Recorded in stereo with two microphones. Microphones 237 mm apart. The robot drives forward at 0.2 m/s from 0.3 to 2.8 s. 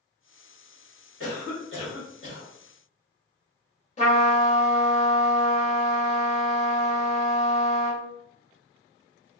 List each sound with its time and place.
1.2 s a cough: 55° left (ahead or behind), 1.6 m
4.0 s a trumpet: 30° left (ahead or behind), 1.0 m